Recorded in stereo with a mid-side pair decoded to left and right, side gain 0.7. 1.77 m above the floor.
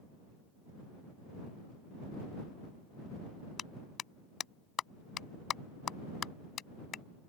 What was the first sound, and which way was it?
A clap, 35° left.